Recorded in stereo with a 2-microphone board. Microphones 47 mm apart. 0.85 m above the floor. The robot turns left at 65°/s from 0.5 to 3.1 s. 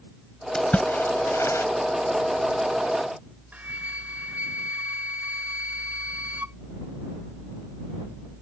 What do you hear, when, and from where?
0.6 s a splash: 15° left (ahead or behind); by 1.7 s 85° left
3.5 s a flute: 30° right (ahead or behind)